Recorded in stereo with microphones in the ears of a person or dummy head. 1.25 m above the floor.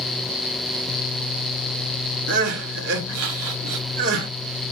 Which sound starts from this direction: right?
Crying, at 2.3 s.